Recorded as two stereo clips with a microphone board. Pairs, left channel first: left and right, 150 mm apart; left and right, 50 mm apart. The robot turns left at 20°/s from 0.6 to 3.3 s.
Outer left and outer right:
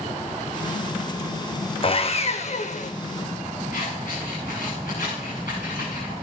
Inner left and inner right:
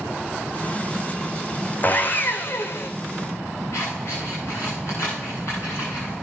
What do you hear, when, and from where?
1.8 s sawing: 40° left (ahead or behind), 1.0 m; by 2.9 s 60° left (ahead or behind), 1.0 m
3.7 s scissors: 75° left (ahead or behind), 9 m